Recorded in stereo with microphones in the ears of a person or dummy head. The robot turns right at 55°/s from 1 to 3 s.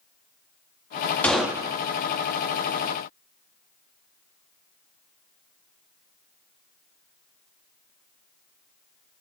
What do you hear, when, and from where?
1.2 s a gunshot: 5° left (ahead or behind), 0.5 m; by 1.8 s 20° right (ahead or behind), 0.5 m